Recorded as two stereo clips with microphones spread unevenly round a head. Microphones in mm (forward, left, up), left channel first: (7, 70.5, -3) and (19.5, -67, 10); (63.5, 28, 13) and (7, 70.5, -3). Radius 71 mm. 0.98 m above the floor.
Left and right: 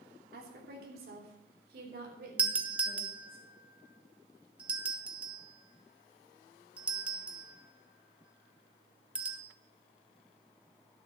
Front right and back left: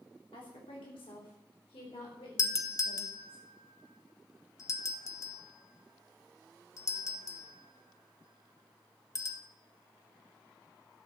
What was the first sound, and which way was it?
A woman speaking, 70° right.